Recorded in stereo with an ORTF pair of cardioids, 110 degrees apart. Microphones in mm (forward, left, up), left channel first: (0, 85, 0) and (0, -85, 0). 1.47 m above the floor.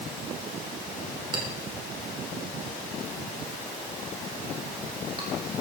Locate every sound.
1.3 s a clink: 30° right, 4 m